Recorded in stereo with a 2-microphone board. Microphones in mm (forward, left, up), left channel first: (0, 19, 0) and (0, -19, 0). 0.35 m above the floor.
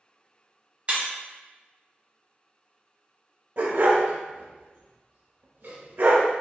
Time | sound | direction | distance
0.9 | breaking glass | 40° right (ahead or behind) | 1.5 m
3.6 | a dog barking | 65° right (ahead or behind) | 1.0 m